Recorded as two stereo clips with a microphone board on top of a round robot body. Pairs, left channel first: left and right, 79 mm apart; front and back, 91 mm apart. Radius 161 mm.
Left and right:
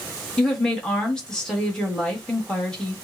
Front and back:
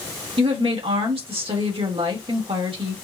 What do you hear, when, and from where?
0.4 s a woman speaking: 170° left, 1.7 m